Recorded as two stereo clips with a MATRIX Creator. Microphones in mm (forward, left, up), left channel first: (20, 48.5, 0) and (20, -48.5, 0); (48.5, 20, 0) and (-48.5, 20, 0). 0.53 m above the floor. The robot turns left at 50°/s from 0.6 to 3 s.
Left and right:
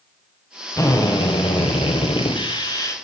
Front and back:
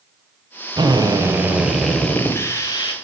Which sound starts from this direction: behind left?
A drill, at 0.8 s.